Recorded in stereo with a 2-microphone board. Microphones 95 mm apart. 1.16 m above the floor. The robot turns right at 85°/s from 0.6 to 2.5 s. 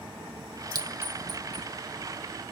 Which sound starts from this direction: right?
A clink, at 0.8 s.